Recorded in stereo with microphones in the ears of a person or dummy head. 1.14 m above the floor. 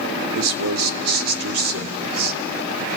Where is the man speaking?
75° right (ahead or behind), 1.8 m.